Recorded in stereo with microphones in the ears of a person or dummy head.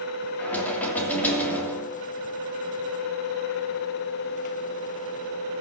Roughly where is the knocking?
Centre.